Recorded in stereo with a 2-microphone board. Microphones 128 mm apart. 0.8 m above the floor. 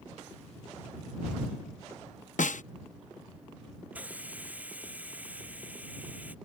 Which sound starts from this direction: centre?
A hiss, at 3.9 s.